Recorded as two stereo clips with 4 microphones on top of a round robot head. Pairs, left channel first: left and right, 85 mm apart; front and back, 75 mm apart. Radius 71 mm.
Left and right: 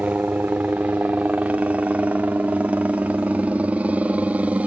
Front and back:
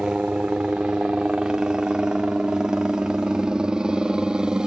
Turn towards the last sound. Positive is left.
turn(degrees=-120)